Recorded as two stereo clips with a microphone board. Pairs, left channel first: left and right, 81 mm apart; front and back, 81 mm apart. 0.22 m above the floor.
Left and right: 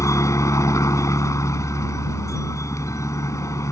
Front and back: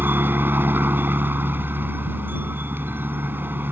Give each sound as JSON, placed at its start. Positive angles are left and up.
{"t": 0.0, "sound": "a helicopter", "azimuth_deg": 125}